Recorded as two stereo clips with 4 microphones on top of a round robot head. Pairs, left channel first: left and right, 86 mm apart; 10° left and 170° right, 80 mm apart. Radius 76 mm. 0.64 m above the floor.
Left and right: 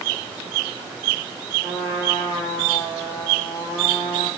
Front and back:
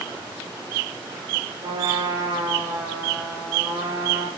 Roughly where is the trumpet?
Behind.